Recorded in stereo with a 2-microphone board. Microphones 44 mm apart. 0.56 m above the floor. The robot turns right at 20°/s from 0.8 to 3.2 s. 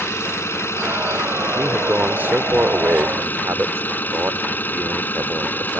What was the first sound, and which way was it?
An engine running, 85° left.